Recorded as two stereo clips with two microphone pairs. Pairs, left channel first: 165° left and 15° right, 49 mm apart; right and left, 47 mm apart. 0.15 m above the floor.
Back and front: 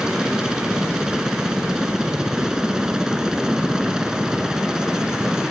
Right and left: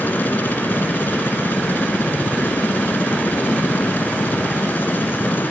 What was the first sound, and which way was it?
A helicopter, 90° right.